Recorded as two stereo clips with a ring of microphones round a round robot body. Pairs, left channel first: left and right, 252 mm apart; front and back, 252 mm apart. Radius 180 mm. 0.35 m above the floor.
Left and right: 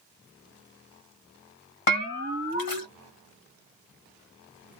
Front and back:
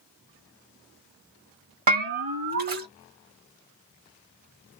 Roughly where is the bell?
Behind left.